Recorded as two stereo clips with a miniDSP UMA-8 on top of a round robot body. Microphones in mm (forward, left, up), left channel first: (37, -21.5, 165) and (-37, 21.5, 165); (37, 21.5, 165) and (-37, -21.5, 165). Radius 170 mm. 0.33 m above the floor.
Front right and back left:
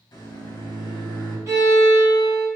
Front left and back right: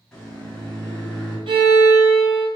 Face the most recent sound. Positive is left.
turn(degrees=-155)